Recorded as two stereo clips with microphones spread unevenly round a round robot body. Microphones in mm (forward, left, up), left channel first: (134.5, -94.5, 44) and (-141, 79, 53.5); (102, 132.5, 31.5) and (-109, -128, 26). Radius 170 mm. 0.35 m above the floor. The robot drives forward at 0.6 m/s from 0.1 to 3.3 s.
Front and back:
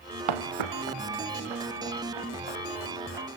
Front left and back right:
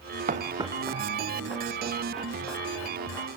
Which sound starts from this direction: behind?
Footsteps, at 0.3 s.